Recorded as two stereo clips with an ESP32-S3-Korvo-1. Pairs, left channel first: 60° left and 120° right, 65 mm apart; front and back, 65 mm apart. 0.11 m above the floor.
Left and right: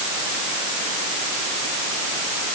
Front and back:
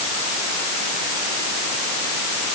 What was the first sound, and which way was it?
Only background noise.